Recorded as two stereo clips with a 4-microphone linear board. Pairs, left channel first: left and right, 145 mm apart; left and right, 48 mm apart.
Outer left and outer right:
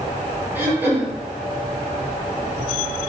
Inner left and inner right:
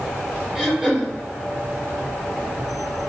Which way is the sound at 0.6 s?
15° right (ahead or behind).